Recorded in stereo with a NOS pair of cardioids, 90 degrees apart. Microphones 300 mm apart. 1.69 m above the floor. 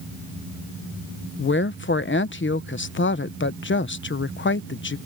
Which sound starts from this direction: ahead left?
A woman speaking, at 1.4 s.